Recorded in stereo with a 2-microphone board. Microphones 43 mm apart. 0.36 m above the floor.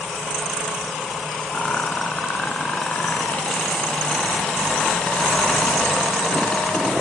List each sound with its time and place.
1.5 s a rattle: 30° left (ahead or behind), 2 m